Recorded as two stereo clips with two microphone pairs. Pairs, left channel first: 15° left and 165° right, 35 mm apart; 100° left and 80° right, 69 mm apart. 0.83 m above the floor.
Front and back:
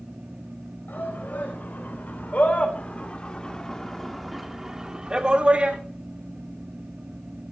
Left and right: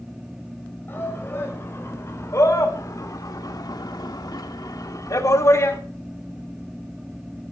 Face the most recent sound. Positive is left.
turn(degrees=150)